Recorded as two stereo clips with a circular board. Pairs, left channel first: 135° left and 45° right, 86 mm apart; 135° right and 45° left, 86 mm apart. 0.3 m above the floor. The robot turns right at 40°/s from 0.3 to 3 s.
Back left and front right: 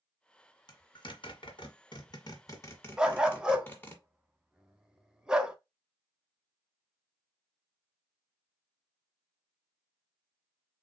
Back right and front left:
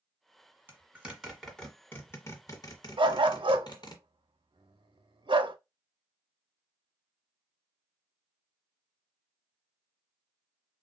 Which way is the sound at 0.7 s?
110° left.